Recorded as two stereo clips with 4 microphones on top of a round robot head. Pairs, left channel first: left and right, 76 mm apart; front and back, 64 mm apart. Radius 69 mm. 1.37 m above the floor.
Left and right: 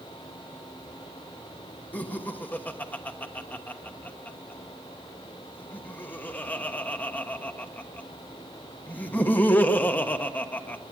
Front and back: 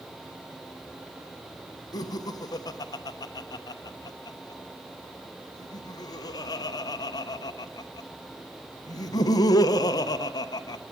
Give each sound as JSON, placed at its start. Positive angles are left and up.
{"t": 1.9, "sound": "laughter", "azimuth_deg": 20, "distance_m": 1.0}